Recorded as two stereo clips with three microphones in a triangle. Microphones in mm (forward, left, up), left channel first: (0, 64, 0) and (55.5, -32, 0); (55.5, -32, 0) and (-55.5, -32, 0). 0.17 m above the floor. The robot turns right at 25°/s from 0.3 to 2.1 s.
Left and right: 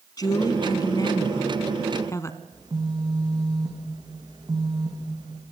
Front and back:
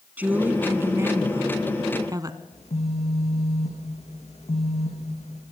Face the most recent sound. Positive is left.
turn(degrees=-5)